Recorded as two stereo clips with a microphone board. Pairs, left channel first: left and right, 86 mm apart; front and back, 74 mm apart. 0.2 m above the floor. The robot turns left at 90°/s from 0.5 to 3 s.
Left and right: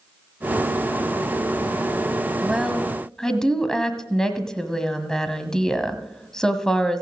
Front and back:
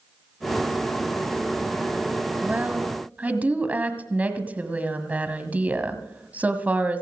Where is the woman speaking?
145° right, 1.4 m; by 7.0 s 160° left, 1.4 m.